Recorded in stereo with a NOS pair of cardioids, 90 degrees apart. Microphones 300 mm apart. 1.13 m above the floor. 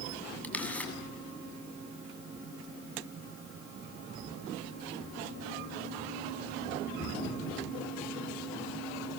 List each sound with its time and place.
0.4 s a camera shutter: 5° left, 8 m